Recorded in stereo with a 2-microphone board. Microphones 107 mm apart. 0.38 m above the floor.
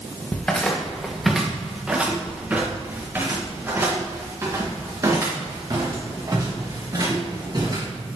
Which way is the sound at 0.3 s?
15° left (ahead or behind).